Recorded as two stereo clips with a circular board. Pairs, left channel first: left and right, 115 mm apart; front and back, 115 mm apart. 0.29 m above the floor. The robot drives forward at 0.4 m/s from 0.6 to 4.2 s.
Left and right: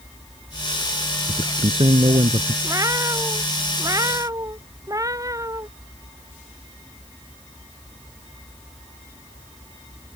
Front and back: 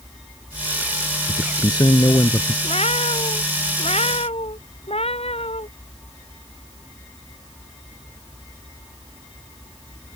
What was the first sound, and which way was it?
A man speaking, 50° right.